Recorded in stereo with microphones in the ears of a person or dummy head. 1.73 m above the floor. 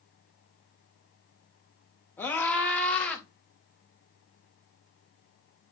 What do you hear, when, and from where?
2.2 s a scream: 10° left (ahead or behind), 3 m; by 3.2 s 5° left (ahead or behind), 3.5 m